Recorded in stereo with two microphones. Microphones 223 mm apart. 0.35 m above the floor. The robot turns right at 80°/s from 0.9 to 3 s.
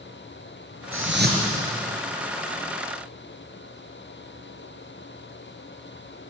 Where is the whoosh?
75° right, 4.5 m; by 1.6 s 25° right, 4.5 m.